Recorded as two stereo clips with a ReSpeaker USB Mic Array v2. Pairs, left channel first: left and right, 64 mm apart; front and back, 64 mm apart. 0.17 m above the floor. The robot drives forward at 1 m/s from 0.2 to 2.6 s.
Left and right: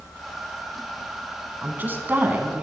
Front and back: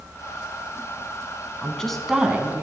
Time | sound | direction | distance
1.6 | a woman speaking | 55° right | 1.2 m